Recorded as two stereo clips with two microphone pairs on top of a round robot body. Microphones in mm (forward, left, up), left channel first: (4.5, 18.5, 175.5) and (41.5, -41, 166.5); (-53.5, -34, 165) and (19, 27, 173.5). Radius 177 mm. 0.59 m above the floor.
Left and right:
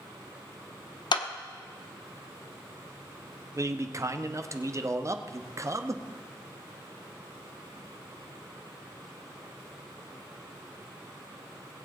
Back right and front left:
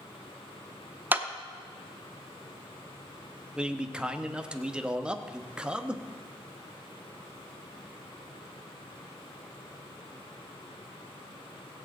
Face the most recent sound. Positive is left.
turn(degrees=-45)